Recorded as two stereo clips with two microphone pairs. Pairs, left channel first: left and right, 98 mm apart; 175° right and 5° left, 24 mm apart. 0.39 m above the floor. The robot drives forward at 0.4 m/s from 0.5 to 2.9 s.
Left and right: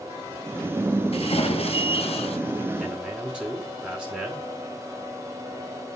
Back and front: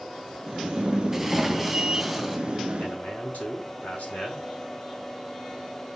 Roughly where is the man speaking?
Behind.